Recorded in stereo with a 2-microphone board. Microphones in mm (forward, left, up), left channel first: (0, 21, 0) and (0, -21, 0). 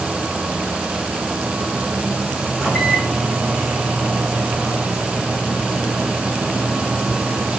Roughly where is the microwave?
Centre.